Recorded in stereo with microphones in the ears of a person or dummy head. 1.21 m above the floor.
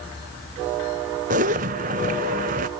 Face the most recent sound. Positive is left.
turn(degrees=-40)  # may be behind; listen again after turning